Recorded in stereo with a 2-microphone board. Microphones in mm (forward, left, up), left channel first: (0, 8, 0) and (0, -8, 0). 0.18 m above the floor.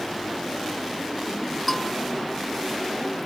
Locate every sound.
1.7 s a bell: 5° left (ahead or behind)